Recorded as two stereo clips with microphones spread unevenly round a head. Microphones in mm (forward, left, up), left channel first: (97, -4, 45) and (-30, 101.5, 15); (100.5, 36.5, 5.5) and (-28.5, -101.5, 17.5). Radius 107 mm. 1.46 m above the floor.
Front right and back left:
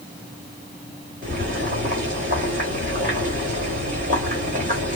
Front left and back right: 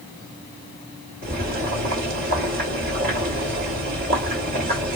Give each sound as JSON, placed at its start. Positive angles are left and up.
{"t": 1.2, "sound": "boiling", "azimuth_deg": -160, "distance_m": 1.5}